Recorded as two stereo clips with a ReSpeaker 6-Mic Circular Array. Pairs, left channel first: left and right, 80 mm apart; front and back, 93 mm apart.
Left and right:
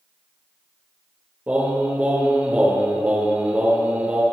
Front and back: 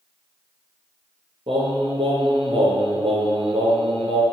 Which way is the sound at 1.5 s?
160° right.